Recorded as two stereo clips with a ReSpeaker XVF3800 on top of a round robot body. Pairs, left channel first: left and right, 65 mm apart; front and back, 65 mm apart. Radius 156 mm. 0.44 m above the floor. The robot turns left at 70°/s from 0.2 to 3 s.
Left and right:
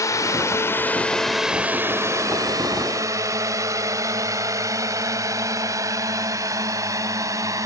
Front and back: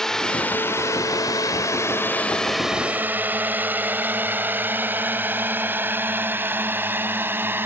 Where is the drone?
80° left; by 7.7 s 125° right.